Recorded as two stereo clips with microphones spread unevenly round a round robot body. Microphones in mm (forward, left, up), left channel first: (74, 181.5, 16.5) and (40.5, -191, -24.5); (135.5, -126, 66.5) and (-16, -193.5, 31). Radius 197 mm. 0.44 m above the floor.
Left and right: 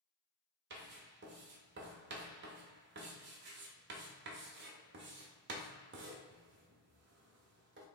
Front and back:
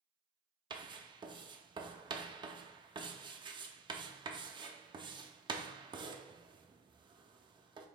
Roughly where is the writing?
Behind right.